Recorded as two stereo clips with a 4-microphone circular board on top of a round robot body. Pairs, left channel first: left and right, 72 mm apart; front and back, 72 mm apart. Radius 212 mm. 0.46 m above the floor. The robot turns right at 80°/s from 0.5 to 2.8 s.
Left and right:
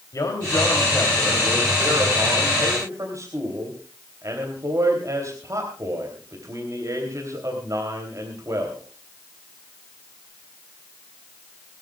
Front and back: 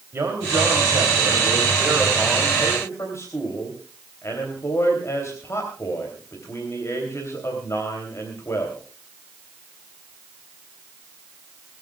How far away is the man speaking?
About 3.5 m.